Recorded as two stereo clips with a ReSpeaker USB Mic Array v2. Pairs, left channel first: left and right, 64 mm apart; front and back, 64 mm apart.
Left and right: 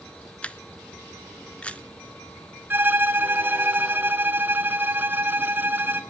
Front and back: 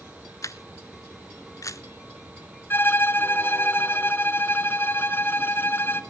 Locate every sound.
0.4 s a camera shutter: 25° left, 0.8 m
2.7 s a violin: 45° right, 1.0 m